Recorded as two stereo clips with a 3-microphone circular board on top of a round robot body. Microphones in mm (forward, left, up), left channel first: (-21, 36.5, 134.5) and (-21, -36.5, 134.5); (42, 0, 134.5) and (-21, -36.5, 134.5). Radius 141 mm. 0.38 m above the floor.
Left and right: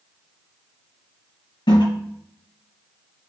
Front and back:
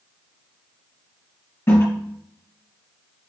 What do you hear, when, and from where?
1.7 s a toilet flushing: 90° left, 2 m